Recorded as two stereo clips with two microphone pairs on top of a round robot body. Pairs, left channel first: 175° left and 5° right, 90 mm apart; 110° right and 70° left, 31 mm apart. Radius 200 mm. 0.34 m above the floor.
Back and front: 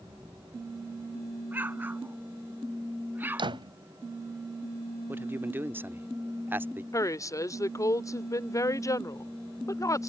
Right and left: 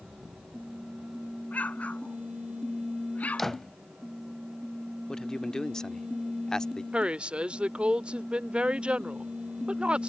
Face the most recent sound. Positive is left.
turn(degrees=125)